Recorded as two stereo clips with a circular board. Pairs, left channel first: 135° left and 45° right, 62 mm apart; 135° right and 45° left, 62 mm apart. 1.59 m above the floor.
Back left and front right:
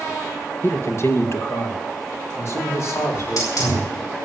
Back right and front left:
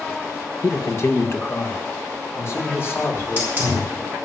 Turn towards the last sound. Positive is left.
turn(degrees=105)